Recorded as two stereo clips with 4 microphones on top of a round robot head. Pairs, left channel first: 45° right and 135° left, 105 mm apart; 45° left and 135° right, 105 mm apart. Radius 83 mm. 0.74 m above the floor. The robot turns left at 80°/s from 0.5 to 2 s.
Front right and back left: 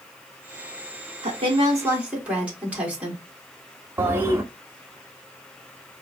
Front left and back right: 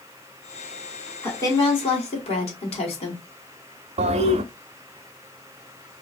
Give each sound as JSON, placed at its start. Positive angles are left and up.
{"t": 1.2, "sound": "a woman speaking", "azimuth_deg": 120, "distance_m": 1.8}
{"t": 4.0, "sound": "a toilet flushing", "azimuth_deg": -155, "distance_m": 0.5}